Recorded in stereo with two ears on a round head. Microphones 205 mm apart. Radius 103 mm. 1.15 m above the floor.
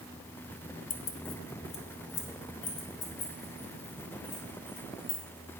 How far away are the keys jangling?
About 0.7 m.